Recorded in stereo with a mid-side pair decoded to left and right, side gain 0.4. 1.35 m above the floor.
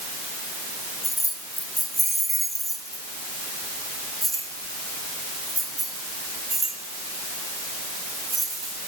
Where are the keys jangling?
Straight ahead, 1.8 m; by 8.7 s 45° right, 5 m.